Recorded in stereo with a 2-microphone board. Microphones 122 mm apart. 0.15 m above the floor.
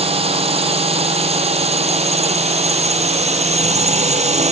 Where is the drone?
55° right (ahead or behind); by 4.5 s 65° right (ahead or behind).